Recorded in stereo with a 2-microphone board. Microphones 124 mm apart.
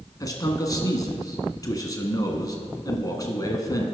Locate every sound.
0.2 s a man speaking: 30° left (ahead or behind), 1.2 m